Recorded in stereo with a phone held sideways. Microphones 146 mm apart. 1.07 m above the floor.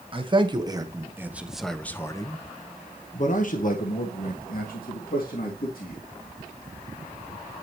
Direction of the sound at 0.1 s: 35° right (ahead or behind).